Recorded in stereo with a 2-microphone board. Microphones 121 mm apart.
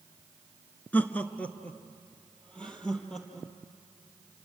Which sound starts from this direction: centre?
Laughter, at 0.9 s.